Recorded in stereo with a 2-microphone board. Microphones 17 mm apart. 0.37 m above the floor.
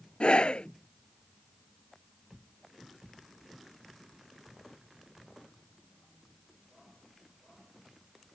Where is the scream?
75° left (ahead or behind).